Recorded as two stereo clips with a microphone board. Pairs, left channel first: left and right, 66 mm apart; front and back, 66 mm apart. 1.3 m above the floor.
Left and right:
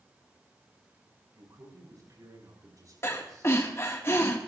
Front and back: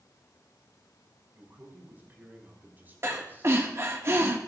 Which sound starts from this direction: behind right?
A man speaking, at 1.3 s.